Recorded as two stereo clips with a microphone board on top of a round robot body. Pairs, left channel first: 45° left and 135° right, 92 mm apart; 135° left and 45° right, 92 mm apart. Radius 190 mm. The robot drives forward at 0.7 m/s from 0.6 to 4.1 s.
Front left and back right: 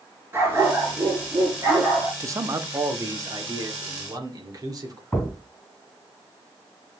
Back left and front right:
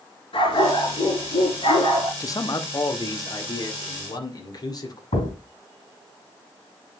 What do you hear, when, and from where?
0.3 s a dog barking: 160° left, 5.5 m
2.2 s a man speaking: 175° left, 1.1 m; by 5.0 s straight behind, 2.5 m
5.1 s a thud: 130° left, 3 m